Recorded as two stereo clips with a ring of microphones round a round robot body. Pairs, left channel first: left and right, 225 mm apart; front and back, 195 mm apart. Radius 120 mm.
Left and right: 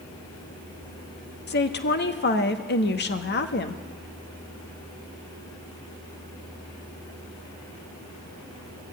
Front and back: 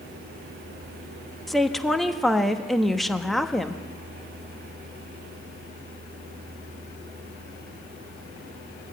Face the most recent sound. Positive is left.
turn(degrees=90)